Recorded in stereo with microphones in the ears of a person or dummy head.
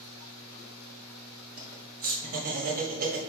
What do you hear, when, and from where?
1.6 s laughter: 45° right (ahead or behind), 1.0 m